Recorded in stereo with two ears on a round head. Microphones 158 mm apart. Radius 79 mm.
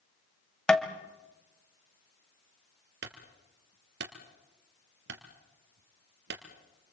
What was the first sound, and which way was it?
Tapping, 5° left (ahead or behind).